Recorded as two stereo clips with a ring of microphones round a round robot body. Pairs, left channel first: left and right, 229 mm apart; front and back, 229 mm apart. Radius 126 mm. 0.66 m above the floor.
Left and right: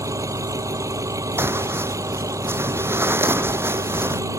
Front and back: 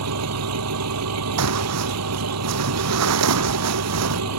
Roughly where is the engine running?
Behind.